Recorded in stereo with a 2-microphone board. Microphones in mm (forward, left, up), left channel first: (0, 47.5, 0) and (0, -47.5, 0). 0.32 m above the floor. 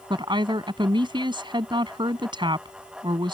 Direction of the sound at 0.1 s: 60° right (ahead or behind).